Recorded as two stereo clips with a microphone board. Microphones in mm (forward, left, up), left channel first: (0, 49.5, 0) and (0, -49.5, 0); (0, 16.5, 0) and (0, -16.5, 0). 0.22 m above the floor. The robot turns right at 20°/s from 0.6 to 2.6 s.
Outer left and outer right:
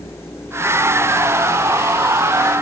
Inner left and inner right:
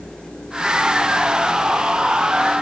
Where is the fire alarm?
No fire alarm in this recording.